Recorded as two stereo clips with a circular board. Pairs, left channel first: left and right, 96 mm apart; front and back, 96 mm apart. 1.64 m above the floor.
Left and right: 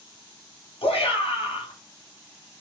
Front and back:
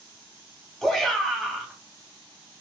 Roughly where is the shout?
Left.